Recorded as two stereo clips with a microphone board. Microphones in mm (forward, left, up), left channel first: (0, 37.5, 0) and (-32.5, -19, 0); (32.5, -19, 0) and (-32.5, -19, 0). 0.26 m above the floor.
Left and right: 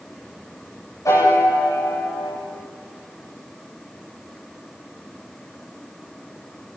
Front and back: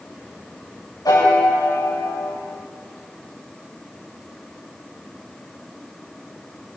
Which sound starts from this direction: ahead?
A piano, at 1.1 s.